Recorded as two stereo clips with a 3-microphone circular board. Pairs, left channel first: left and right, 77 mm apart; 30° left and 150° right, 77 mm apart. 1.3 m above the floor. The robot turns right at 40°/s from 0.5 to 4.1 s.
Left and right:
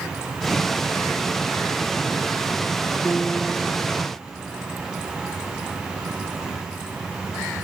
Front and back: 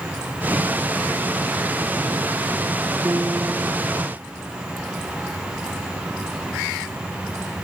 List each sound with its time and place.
3.0 s a piano: 160° left, 1.0 m; by 4.1 s 155° right, 1.0 m